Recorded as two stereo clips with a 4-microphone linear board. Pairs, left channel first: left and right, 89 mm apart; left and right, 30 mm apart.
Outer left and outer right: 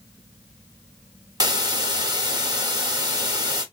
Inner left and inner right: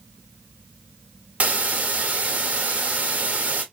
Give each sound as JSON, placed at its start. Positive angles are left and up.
{"t": 1.4, "sound": "a hiss", "side_deg": -45, "distance_m": 0.9}